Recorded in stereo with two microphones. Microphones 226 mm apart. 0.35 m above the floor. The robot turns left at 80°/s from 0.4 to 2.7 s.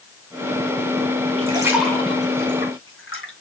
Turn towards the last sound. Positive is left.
turn(degrees=65)  # may be behind; listen again after turning